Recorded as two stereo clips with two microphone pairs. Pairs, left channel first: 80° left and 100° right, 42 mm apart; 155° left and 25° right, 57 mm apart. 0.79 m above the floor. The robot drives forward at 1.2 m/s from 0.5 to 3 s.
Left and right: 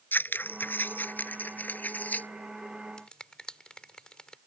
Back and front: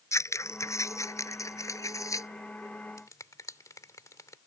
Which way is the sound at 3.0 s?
150° left.